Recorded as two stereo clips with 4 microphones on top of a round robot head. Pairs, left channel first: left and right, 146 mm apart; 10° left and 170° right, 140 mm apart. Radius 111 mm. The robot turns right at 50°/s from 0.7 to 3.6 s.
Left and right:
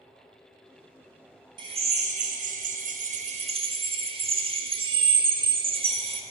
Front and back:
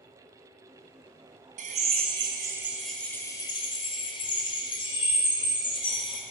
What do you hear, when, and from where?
1.6 s a drill: 145° right, 1.8 m; by 6.2 s 45° right, 1.8 m